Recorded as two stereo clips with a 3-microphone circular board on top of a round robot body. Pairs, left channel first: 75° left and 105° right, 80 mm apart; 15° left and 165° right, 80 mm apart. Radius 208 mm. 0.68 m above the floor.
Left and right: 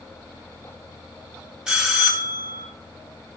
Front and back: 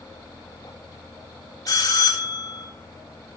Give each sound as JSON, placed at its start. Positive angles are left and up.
{"t": 1.7, "sound": "a bell", "azimuth_deg": -25, "distance_m": 3.0}